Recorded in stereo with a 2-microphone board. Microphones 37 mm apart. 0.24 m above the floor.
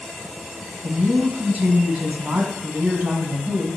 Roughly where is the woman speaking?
Right.